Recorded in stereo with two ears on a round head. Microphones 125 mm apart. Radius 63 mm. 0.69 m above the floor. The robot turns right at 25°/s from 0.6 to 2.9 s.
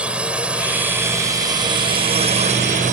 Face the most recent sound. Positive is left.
turn(degrees=-115)